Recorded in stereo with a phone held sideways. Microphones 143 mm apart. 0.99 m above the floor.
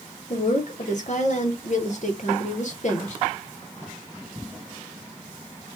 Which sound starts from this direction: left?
A woman speaking, at 0.3 s.